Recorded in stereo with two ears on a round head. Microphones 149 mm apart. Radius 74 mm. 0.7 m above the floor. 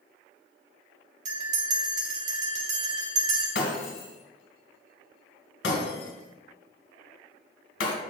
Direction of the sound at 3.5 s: 75° left (ahead or behind).